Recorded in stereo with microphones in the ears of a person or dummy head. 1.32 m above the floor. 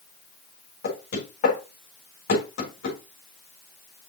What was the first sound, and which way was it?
Knocking, 50° left (ahead or behind).